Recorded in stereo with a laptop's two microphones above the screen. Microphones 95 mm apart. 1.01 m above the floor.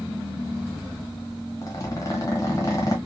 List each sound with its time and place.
1.6 s a zipper: 30° left (ahead or behind), 1.2 m